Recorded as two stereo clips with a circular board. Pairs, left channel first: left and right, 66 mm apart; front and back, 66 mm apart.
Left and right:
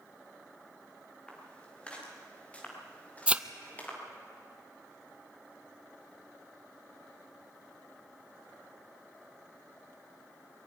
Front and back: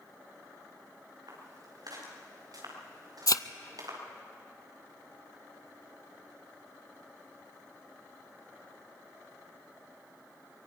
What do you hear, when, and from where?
1.3 s footsteps: 165° left, 7.5 m; by 4.0 s 155° left, 6 m
3.3 s a thud: 20° right, 0.6 m